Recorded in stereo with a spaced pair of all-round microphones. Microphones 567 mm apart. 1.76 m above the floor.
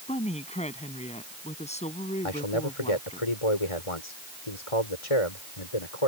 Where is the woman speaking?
10° left (ahead or behind).